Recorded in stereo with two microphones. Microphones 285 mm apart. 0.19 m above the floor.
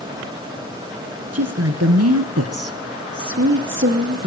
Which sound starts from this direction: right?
A woman speaking, at 1.3 s.